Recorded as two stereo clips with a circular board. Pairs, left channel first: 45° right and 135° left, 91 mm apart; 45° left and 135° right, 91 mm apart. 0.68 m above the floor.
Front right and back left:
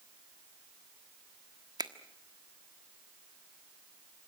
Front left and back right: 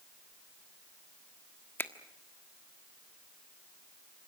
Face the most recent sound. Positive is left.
turn(degrees=105)